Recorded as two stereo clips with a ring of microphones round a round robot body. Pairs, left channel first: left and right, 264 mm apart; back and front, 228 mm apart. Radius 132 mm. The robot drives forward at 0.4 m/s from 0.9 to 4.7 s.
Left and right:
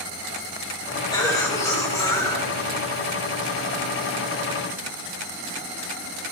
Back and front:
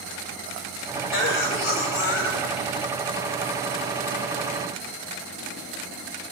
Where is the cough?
165° left, 1.8 m; by 2.9 s 170° left, 2.5 m.